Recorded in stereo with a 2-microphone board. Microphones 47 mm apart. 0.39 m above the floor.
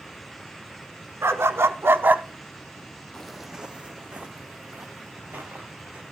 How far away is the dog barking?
About 1.1 m.